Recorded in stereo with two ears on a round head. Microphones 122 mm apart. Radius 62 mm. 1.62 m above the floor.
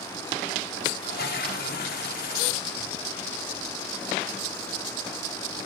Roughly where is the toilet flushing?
Left.